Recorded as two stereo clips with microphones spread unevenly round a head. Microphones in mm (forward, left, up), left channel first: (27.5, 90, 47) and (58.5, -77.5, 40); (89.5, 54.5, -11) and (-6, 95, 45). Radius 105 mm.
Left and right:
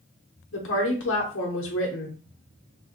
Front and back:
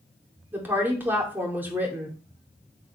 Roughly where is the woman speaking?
Left.